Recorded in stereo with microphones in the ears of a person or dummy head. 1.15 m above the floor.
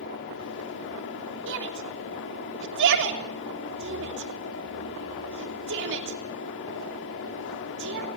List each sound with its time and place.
0.0 s a fan: 70° left (ahead or behind), 3 m
1.5 s a shout: 65° right (ahead or behind), 3 m